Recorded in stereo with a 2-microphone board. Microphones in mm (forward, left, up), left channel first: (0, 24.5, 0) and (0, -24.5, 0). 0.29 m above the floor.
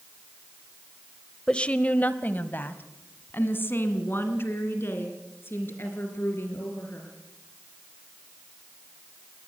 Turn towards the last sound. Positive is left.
turn(degrees=50)  # may be behind; listen again after turning